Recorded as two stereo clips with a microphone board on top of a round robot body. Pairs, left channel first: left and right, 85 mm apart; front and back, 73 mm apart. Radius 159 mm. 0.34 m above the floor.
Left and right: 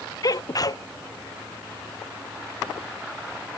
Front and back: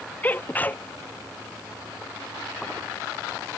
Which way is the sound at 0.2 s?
60° left.